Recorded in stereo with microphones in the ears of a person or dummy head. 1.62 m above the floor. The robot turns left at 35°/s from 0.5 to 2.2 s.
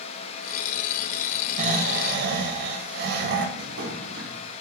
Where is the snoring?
45° right (ahead or behind), 1.0 m; by 3.5 s 65° right (ahead or behind), 1.0 m.